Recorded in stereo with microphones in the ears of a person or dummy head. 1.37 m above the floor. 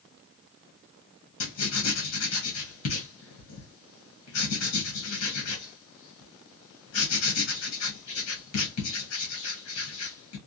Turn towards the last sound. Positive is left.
turn(degrees=80)